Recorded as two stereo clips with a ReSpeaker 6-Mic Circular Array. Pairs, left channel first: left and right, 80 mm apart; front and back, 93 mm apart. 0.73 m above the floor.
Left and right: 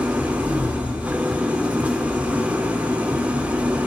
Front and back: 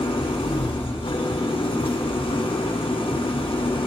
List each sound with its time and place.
0.0 s an engine running: 20° right, 0.9 m